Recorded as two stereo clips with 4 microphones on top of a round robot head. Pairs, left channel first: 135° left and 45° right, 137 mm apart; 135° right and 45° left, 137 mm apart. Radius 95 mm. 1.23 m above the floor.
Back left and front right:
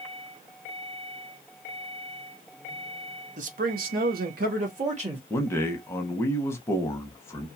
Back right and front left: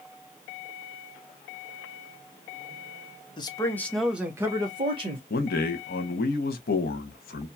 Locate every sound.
3.4 s a man speaking: 75° right, 0.9 m; by 5.2 s 5° right, 1.3 m
5.3 s a man speaking: 150° right, 0.8 m